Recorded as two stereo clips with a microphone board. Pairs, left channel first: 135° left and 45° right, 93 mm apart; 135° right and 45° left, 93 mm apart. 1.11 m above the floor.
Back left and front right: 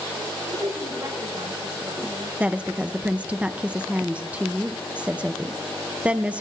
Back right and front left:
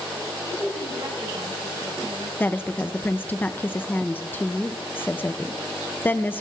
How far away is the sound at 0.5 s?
About 5.5 m.